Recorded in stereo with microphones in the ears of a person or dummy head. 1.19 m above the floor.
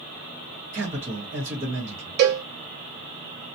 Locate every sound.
0.7 s a man speaking: 40° right (ahead or behind), 1.3 m
2.2 s a cowbell: 65° right (ahead or behind), 0.7 m